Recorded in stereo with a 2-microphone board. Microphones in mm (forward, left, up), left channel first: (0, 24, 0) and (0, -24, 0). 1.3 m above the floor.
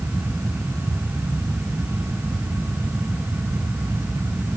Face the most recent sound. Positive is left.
No sound to turn to.